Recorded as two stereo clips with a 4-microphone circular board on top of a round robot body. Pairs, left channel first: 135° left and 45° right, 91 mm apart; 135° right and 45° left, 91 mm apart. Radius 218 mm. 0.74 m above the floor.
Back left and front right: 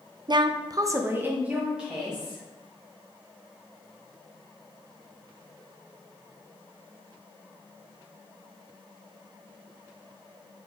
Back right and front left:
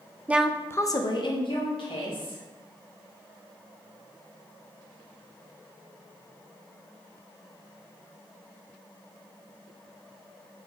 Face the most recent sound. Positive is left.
turn(degrees=-130)